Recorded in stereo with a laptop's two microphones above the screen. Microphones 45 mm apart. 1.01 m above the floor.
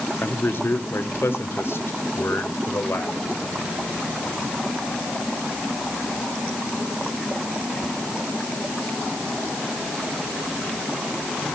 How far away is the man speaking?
About 1.9 m.